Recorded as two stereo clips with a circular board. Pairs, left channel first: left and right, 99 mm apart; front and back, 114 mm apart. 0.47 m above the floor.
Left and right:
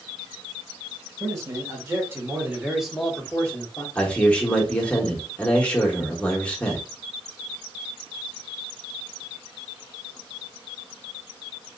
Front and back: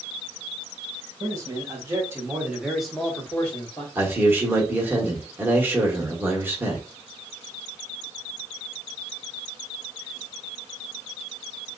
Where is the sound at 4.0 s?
150° left, 1.0 m.